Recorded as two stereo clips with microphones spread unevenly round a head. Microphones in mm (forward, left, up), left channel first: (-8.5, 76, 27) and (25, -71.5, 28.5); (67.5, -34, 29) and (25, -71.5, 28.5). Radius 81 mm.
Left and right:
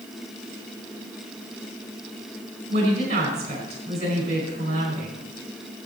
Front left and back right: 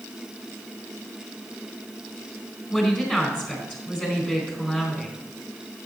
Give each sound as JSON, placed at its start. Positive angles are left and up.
{"t": 2.7, "sound": "a woman speaking", "azimuth_deg": -30, "distance_m": 4.5}